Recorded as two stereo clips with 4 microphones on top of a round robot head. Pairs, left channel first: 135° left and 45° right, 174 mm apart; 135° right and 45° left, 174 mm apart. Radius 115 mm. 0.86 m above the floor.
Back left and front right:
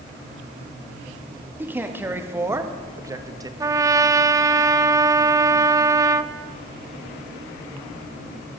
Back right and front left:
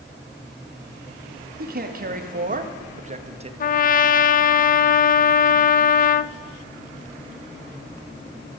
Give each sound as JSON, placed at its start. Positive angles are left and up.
{"t": 1.6, "sound": "a man speaking", "azimuth_deg": 30, "distance_m": 2.0}
{"t": 3.6, "sound": "a trumpet", "azimuth_deg": -115, "distance_m": 0.6}